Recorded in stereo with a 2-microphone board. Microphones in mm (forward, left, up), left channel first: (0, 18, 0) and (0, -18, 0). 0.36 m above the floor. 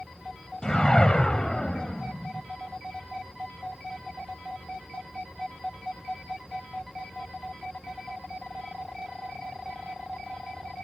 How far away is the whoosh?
About 1.2 m.